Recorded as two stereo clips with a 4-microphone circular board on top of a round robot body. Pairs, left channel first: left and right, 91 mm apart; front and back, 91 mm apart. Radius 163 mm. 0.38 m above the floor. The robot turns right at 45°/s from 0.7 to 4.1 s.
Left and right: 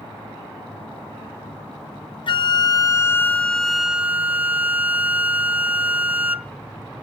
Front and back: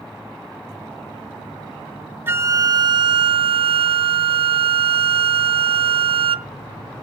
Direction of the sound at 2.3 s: 115° left.